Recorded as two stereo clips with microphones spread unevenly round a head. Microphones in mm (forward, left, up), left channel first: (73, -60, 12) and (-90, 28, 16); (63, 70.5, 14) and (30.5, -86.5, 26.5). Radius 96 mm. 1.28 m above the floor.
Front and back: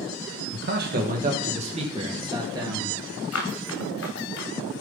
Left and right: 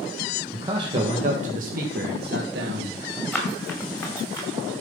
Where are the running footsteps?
5° right, 5.5 m; by 4.5 s 10° left, 5.5 m.